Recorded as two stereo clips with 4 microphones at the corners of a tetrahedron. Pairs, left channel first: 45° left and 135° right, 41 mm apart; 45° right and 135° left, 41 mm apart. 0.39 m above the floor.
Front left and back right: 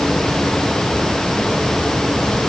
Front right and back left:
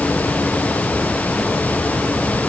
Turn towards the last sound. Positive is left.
No sound to turn to.